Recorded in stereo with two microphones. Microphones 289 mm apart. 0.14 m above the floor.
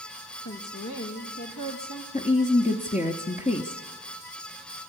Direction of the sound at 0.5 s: 75° left (ahead or behind).